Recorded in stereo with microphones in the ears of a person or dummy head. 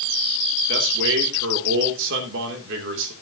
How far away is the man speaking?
About 2.5 m.